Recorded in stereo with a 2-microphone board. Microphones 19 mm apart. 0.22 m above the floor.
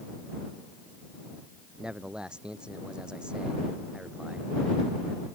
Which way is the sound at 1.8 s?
50° right (ahead or behind).